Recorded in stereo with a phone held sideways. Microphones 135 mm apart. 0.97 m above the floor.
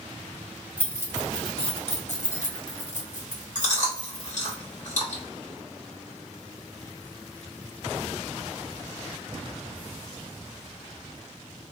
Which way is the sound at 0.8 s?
10° left (ahead or behind).